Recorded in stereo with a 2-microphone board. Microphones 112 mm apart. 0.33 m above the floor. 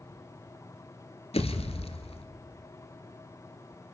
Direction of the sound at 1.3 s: 65° left (ahead or behind).